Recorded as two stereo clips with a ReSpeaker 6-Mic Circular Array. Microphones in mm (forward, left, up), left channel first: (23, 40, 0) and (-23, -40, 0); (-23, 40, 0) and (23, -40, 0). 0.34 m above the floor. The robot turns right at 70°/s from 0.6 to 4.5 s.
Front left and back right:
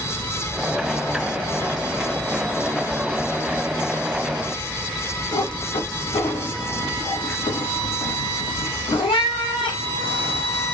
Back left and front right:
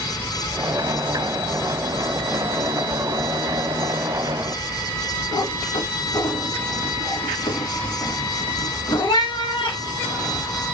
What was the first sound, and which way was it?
A cat meowing, 80° left.